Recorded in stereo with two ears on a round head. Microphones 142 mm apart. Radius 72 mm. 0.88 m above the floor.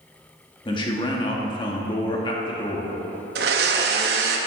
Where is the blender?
70° right (ahead or behind), 0.9 m.